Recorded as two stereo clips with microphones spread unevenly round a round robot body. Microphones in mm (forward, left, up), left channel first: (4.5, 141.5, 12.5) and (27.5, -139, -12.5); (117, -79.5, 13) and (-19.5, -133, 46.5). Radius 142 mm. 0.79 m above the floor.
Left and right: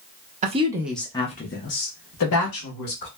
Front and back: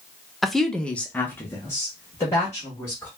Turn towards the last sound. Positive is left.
turn(degrees=85)